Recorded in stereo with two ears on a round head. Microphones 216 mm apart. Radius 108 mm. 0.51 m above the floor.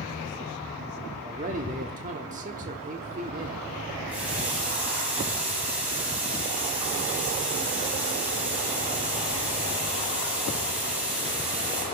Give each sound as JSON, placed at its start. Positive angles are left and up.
{"t": 1.2, "sound": "a man speaking", "side_deg": -35, "distance_m": 1.2}
{"t": 4.1, "sound": "a running tap", "side_deg": -5, "distance_m": 9.0}